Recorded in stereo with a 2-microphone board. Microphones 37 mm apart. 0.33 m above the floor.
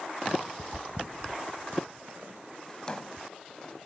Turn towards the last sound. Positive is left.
turn(degrees=20)  # may be behind; listen again after turning